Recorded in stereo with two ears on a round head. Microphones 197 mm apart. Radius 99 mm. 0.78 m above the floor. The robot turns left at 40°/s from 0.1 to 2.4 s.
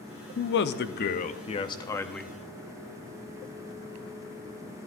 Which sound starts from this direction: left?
A man speaking, at 0.4 s.